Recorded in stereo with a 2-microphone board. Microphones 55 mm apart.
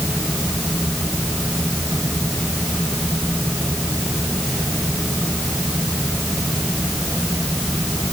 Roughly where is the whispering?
No whispering in this recording.